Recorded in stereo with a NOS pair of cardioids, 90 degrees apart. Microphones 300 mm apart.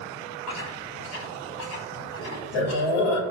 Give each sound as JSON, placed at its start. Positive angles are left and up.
{"t": 0.5, "sound": "chewing", "azimuth_deg": 70, "distance_m": 3.0}